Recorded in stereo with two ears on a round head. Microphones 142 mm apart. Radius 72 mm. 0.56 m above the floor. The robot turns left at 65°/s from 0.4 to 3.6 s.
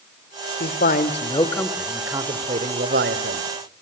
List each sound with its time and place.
0.6 s a man speaking: 75° left, 1.7 m; by 3.4 s 105° right, 1.7 m